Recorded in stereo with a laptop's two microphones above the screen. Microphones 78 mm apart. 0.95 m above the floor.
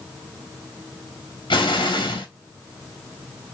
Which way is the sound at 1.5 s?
85° left.